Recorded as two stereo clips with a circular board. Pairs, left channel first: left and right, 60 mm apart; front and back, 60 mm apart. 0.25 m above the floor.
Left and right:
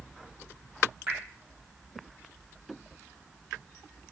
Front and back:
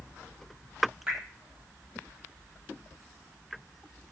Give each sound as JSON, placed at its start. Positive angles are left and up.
{"t": 1.1, "sound": "dripping", "azimuth_deg": -135, "distance_m": 1.4}